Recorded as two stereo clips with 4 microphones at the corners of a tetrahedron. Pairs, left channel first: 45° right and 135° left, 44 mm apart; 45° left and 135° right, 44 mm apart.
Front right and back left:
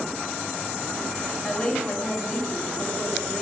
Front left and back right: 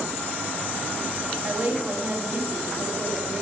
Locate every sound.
1.4 s a woman speaking: 105° right, 2.5 m